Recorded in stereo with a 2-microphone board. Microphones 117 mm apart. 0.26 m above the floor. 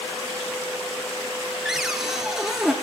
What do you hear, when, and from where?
1.6 s a cupboard door: 5° right (ahead or behind), 1.9 m